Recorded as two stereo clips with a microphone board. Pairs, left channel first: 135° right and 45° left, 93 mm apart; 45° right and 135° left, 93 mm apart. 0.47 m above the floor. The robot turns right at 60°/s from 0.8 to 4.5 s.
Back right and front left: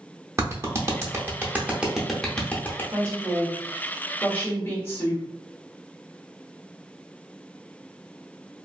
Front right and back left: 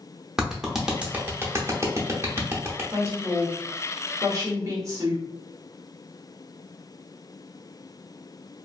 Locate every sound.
0.4 s a clap: 55° left, 0.7 m; by 2.8 s 175° left, 0.7 m
2.9 s a woman speaking: 75° left, 1.2 m; by 5.2 s 170° left, 1.2 m